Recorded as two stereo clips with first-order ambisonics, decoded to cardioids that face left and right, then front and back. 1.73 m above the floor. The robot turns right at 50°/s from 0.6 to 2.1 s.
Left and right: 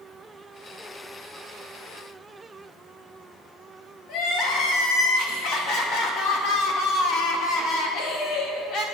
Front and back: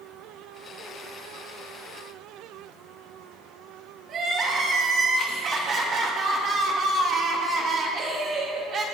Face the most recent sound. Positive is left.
turn(degrees=125)